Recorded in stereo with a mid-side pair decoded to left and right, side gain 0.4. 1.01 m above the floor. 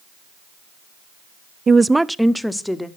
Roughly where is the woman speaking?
Ahead right.